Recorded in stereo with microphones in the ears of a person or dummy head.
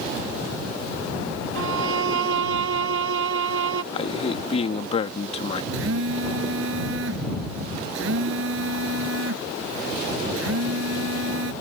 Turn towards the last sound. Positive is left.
turn(degrees=-80)